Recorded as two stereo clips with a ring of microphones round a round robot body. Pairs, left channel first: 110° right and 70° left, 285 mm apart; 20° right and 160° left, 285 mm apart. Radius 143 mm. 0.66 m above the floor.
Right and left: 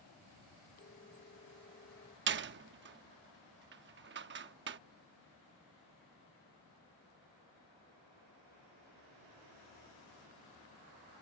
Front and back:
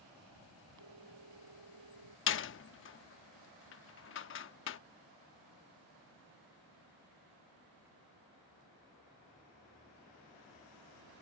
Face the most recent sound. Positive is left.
turn(degrees=20)